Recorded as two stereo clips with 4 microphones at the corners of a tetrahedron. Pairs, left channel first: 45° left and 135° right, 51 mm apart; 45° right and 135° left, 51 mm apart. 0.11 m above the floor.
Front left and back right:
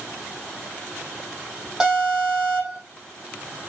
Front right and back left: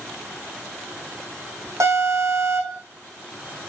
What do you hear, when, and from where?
1.8 s an alarm: 145° left, 6.5 m